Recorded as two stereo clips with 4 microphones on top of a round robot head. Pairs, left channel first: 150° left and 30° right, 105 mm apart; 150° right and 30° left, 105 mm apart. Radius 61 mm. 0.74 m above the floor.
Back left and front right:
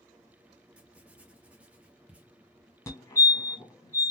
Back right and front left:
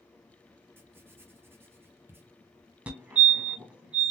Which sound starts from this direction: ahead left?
Writing, at 0.8 s.